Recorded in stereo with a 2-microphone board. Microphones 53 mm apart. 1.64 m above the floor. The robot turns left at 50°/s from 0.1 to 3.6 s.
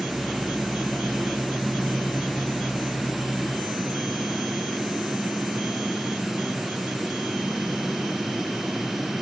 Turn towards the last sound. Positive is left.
No sound to turn to.